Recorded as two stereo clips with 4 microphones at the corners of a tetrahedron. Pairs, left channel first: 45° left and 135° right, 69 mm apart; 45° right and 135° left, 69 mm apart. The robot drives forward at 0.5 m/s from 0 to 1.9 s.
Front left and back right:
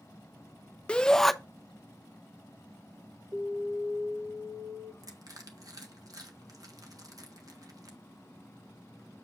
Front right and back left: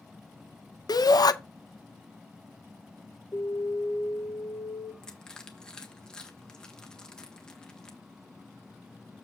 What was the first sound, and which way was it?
A shout, 30° right.